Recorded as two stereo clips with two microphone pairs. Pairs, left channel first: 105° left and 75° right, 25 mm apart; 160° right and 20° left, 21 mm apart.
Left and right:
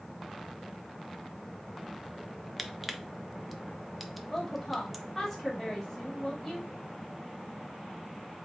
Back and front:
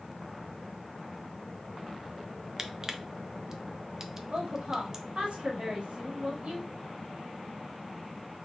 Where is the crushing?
Straight ahead, 0.5 m.